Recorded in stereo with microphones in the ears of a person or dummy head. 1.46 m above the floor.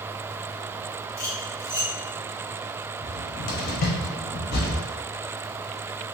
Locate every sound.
1.2 s cutlery clinking: 20° left (ahead or behind), 0.8 m
3.0 s a cupboard door: 55° left (ahead or behind), 0.8 m